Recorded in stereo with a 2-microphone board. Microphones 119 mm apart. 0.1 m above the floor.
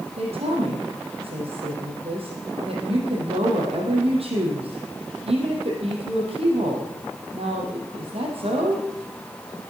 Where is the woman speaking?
55° right (ahead or behind), 3.5 m.